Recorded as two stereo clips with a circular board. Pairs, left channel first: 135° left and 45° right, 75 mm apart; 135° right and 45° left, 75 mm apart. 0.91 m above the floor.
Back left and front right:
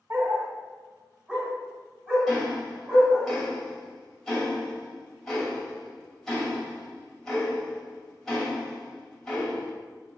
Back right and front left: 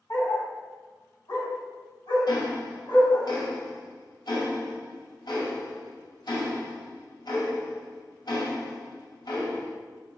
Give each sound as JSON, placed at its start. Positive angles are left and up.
{"t": 0.1, "sound": "a dog barking", "azimuth_deg": -95, "distance_m": 1.3}
{"t": 2.3, "sound": "ticking", "azimuth_deg": -140, "distance_m": 2.5}